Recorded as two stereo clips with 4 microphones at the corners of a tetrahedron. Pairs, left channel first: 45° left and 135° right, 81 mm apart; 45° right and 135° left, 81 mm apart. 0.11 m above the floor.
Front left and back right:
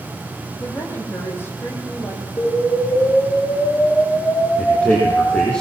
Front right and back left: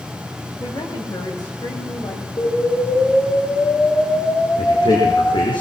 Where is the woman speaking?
15° right, 6 m.